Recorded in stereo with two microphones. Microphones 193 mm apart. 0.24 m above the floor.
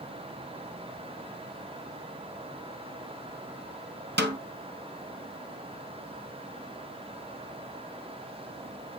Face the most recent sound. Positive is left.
turn(degrees=-65)  # may be behind; listen again after turning